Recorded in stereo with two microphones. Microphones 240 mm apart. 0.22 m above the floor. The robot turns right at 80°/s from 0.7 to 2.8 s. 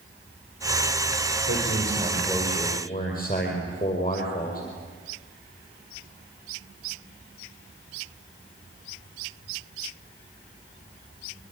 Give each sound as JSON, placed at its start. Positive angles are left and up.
{"t": 1.5, "sound": "a man speaking", "azimuth_deg": -70, "distance_m": 6.0}